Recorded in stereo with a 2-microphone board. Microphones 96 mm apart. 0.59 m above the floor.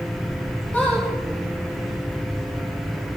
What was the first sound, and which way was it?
A squeak, 20° left (ahead or behind).